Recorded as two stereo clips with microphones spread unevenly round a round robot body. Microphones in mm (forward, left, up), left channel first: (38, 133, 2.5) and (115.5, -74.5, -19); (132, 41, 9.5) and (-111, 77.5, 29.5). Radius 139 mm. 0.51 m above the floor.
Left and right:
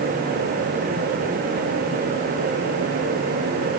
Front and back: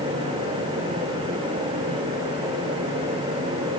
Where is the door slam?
No door slam in this recording.